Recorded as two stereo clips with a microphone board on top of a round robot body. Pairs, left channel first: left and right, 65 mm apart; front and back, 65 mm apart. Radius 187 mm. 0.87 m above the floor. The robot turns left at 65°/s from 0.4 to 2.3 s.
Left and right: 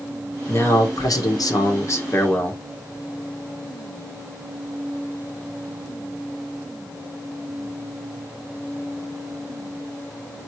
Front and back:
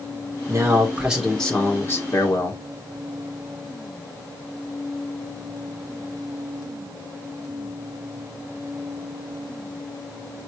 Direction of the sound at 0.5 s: 140° left.